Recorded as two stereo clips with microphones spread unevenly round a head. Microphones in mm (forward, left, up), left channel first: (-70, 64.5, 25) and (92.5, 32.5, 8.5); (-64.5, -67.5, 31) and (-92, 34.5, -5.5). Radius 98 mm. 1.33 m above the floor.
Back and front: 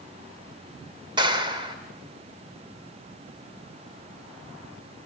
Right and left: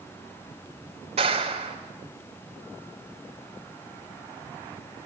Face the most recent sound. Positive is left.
turn(degrees=50)